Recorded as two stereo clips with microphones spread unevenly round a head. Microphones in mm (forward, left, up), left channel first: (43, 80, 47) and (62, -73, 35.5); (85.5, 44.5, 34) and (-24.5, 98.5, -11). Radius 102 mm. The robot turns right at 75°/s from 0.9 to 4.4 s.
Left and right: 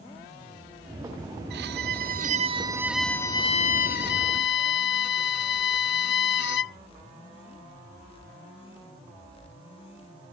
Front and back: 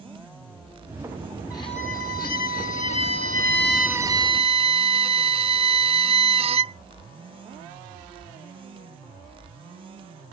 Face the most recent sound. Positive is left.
turn(degrees=115)